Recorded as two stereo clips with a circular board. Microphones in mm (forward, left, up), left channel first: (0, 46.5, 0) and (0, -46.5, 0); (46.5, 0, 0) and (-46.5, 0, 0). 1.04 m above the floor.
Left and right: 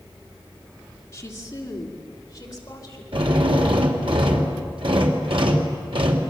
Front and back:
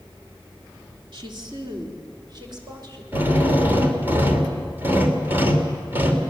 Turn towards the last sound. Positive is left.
turn(degrees=-115)